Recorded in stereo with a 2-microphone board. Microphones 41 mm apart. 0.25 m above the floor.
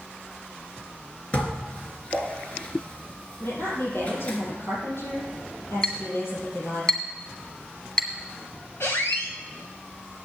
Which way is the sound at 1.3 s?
30° left (ahead or behind).